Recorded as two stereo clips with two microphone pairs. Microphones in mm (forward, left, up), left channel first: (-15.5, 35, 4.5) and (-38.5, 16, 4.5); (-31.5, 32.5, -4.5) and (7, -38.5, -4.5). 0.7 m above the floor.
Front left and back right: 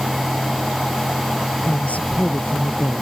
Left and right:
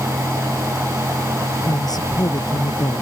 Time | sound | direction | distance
1.6 | a woman speaking | 80° left | ?